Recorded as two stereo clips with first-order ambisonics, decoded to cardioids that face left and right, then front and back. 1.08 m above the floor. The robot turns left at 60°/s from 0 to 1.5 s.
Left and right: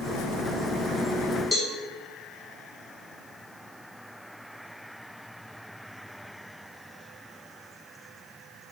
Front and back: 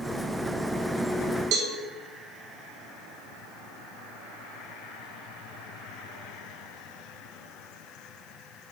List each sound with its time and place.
1.5 s a cowbell: 170° left, 1.3 m